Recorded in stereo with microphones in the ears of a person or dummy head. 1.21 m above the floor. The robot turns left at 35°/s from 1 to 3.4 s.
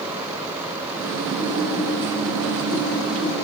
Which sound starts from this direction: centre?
Typing on a keyboard, at 1.4 s.